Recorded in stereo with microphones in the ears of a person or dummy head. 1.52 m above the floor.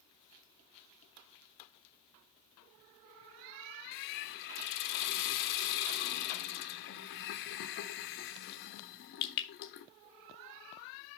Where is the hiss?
60° left (ahead or behind), 1.2 m.